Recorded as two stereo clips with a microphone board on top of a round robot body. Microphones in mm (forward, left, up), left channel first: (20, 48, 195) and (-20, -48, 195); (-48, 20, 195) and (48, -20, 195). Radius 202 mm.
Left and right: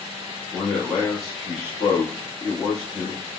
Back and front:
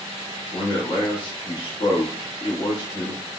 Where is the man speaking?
160° left, 1.2 m.